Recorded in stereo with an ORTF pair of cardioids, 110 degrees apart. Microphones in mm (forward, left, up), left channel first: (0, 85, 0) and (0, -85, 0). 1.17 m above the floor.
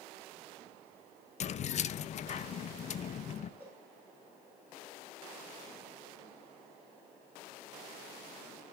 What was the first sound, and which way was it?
Keys jangling, 45° left.